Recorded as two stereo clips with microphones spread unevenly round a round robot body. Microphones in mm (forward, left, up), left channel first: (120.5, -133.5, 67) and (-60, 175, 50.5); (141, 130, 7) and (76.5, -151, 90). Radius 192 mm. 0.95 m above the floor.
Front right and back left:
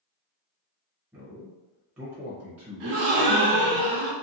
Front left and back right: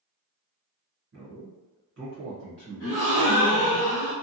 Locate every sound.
1.1 s a man speaking: 155° right, 0.8 m
2.8 s a gasp: 135° left, 0.7 m